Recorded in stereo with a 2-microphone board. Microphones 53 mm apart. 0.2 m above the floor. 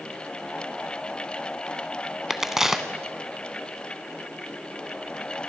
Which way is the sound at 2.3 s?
10° right (ahead or behind).